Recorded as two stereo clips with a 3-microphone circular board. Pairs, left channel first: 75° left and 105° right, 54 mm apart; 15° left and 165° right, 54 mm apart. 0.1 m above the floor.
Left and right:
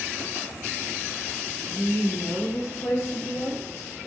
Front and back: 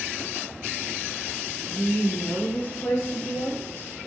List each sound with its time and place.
1.7 s a woman speaking: 90° left, 3 m; by 3.9 s 60° left, 5.5 m